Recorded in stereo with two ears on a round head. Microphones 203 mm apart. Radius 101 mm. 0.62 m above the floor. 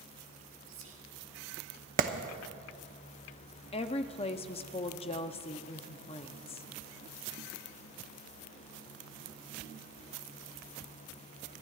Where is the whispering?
60° right (ahead or behind), 1.5 m.